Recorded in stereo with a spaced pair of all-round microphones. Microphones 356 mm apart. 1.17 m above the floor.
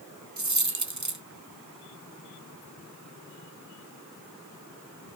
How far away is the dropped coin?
About 0.8 m.